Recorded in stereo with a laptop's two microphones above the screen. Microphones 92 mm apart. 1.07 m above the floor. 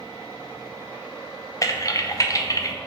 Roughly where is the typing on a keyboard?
Left.